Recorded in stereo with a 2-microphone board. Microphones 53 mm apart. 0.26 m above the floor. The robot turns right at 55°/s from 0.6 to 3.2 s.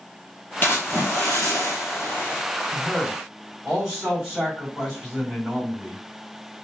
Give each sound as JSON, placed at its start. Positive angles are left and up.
{"t": 0.6, "sound": "a splash", "azimuth_deg": 40, "distance_m": 1.3}
{"t": 2.7, "sound": "a man speaking", "side_deg": 10, "distance_m": 2.0}